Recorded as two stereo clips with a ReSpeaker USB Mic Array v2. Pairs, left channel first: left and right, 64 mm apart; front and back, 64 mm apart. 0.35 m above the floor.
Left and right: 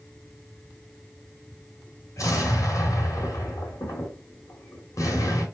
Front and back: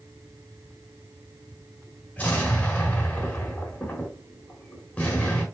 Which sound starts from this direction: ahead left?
An explosion, at 2.2 s.